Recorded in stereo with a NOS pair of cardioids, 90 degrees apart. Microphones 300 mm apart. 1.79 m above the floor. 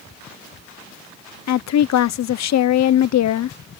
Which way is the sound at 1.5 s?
60° left.